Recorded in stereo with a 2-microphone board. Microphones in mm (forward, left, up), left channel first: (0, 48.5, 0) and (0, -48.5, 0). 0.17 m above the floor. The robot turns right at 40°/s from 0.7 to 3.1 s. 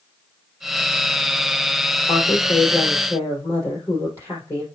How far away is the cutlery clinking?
No cutlery clinking in this recording.